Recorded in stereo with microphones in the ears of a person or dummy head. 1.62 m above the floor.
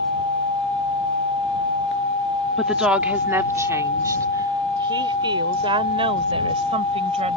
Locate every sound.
2.6 s a woman speaking: 5° right (ahead or behind); by 7.4 s 35° right (ahead or behind)